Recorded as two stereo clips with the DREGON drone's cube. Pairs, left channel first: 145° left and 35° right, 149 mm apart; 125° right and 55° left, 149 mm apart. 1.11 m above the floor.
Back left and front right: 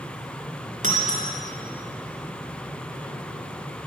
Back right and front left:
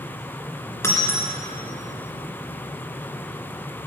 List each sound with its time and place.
0.8 s breaking glass: 55° right, 2 m